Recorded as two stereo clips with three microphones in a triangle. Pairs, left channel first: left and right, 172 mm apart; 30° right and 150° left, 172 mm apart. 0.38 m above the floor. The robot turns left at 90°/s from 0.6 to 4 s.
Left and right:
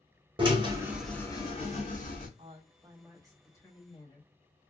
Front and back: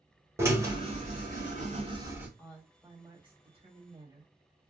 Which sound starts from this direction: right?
A woman speaking, at 2.4 s.